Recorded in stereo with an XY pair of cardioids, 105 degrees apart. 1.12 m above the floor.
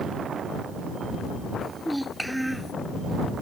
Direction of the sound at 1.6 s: 5° right.